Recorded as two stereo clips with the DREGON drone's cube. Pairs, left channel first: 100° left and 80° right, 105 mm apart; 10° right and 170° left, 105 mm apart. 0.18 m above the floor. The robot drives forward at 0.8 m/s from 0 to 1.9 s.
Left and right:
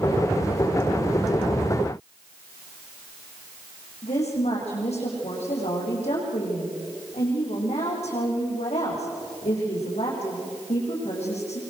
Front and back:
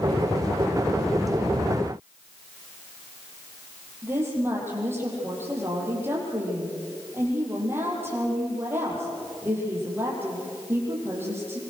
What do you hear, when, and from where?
4.0 s a woman speaking: 100° left, 8 m